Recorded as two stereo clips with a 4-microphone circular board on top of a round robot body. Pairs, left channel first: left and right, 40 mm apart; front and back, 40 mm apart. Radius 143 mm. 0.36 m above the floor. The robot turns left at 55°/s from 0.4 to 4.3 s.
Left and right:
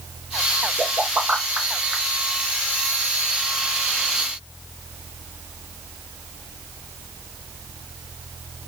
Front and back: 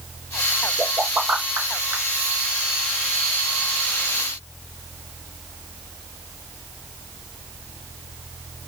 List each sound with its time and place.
0.8 s a pop: 115° right, 3 m; by 2.0 s 175° left, 3 m